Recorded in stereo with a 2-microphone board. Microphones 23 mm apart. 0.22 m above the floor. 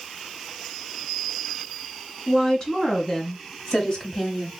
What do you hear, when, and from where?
2.3 s a woman speaking: 25° left (ahead or behind), 2 m